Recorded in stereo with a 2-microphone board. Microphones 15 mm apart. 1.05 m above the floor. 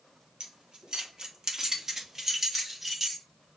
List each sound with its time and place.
0.4 s keys jangling: 75° right (ahead or behind), 1.2 m; by 3.2 s 10° right (ahead or behind), 1.7 m